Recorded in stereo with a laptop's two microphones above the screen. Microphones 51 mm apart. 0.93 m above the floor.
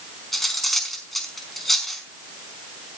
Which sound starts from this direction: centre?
Cutlery clinking, at 0.3 s.